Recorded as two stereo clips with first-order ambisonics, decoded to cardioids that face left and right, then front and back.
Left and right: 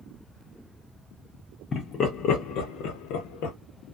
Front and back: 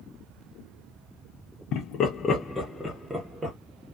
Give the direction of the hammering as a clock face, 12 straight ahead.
No hammering in this recording.